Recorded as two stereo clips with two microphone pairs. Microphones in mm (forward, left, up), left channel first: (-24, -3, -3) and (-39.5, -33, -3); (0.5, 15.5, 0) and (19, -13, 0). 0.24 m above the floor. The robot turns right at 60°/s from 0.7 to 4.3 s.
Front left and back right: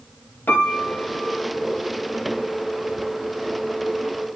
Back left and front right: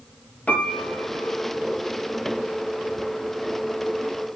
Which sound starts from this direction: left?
A piano, at 0.5 s.